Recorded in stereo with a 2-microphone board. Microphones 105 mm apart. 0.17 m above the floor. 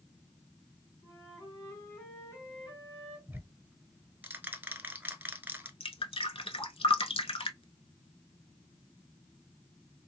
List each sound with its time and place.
1.0 s a flute: 35° left (ahead or behind), 3 m
3.3 s ticking: 20° right (ahead or behind), 0.9 m
5.8 s dripping: 65° left (ahead or behind), 0.7 m